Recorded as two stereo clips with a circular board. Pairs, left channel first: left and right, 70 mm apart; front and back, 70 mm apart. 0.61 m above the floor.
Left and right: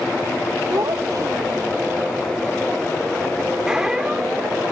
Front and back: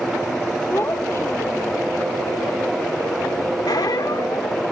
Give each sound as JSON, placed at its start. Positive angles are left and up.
{"t": 0.7, "sound": "a child speaking", "azimuth_deg": -55}
{"t": 3.7, "sound": "a squeak", "azimuth_deg": -10}